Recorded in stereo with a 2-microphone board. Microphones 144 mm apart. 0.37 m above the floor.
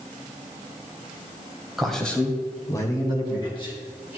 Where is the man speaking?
Centre (ahead or behind), 1.7 m; by 4.2 s 40° left (ahead or behind), 3.5 m.